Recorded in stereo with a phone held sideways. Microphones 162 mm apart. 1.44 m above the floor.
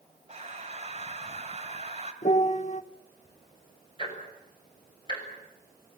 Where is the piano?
50° left (ahead or behind), 1.0 m.